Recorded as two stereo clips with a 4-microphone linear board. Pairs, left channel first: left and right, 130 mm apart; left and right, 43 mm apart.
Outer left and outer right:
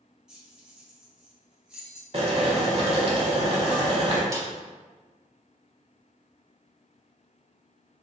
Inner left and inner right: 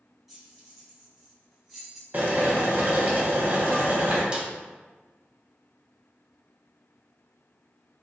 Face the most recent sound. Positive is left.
turn(degrees=-25)  # may be behind; listen again after turning